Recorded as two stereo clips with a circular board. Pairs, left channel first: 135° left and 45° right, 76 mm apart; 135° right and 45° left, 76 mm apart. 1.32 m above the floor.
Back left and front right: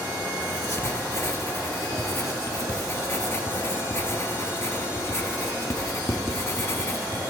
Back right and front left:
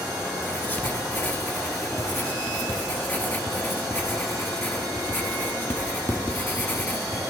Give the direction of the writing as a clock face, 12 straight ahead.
6 o'clock.